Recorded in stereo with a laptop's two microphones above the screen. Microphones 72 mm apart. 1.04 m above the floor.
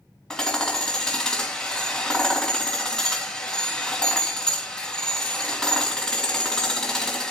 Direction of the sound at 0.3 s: 10° left (ahead or behind).